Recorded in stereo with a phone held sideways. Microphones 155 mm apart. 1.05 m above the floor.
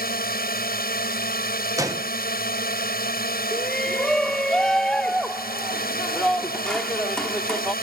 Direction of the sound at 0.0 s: 75° left (ahead or behind).